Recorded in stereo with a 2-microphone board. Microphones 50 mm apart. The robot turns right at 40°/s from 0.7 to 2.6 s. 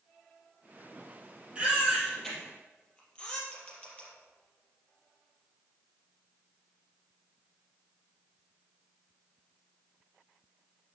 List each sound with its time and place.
1.6 s a baby crying: 20° right (ahead or behind), 4 m; by 3.4 s 20° left (ahead or behind), 4 m
3.5 s a camera shutter: 20° left (ahead or behind), 5 m